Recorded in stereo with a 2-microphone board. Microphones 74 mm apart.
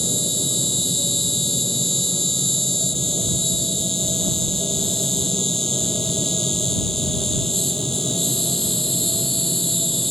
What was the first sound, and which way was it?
An insect, 5° left (ahead or behind).